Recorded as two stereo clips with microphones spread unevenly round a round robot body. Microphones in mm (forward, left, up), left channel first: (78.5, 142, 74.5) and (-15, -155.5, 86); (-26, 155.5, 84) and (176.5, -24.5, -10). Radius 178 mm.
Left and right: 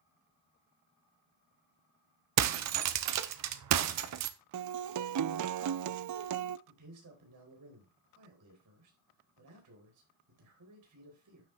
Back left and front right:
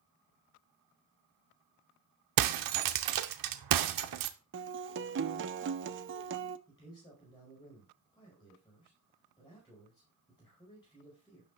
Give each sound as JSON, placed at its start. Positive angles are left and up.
{"t": 2.4, "sound": "breaking glass", "azimuth_deg": -70, "distance_m": 0.7}
{"t": 4.5, "sound": "a guitar", "azimuth_deg": -75, "distance_m": 0.5}
{"t": 6.7, "sound": "a man speaking", "azimuth_deg": -140, "distance_m": 4.0}